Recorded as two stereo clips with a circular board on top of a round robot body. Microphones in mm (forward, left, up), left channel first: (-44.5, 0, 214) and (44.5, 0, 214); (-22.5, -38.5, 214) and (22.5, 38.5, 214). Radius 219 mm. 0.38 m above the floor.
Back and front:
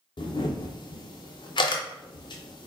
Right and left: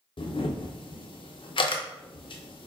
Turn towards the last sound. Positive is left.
turn(degrees=-145)